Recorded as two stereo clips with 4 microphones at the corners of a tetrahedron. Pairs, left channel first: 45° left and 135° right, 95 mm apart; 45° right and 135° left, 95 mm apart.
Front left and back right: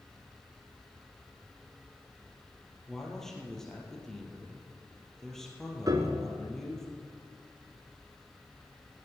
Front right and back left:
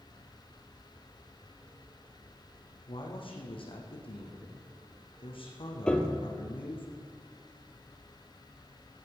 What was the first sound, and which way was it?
A man speaking, 40° right.